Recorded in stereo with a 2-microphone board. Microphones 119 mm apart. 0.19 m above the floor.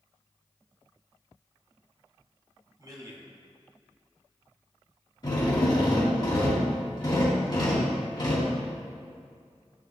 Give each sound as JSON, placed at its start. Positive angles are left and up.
{"t": 2.8, "sound": "a man speaking", "side_deg": -35, "distance_m": 1.7}
{"t": 5.2, "sound": "a drill", "side_deg": 40, "distance_m": 1.9}